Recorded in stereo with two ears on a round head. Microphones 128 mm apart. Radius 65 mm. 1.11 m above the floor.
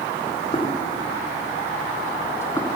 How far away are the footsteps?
About 3 m.